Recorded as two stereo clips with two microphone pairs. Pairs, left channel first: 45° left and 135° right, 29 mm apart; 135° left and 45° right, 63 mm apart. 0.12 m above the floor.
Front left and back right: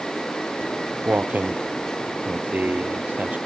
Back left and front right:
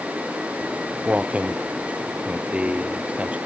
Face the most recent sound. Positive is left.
turn(degrees=-115)